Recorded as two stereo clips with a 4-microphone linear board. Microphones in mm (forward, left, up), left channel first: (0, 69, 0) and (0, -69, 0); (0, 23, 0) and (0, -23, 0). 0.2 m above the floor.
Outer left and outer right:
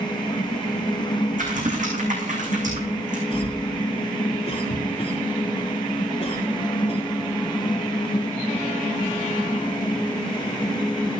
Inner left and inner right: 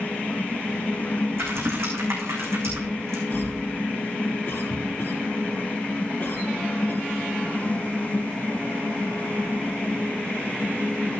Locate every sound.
1.4 s typing on a keyboard: 65° right (ahead or behind), 4 m
3.3 s a cough: 50° left (ahead or behind), 2 m